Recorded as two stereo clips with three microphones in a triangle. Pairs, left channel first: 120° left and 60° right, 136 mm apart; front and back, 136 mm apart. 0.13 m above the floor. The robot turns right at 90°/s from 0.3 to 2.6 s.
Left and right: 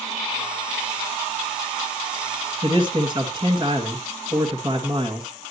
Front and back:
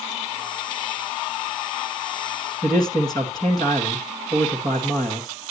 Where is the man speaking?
40° right, 1.6 m.